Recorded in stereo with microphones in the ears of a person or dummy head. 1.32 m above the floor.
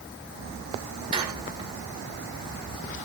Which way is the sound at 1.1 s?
30° right (ahead or behind).